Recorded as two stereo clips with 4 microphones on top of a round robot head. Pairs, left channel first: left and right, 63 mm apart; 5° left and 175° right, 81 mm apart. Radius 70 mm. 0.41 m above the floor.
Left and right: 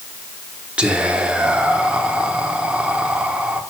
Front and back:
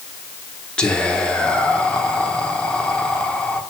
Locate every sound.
0.8 s whispering: 50° right, 1.0 m